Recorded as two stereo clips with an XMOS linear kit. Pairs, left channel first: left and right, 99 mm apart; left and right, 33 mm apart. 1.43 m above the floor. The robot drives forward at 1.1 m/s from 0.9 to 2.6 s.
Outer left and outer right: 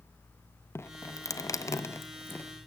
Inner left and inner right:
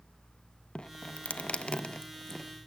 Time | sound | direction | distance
0.8 | dripping | 25° left (ahead or behind) | 0.9 m